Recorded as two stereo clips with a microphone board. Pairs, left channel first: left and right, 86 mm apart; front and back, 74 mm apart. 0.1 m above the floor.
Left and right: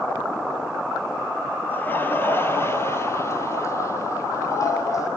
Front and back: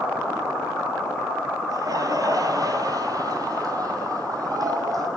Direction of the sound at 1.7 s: 155° left.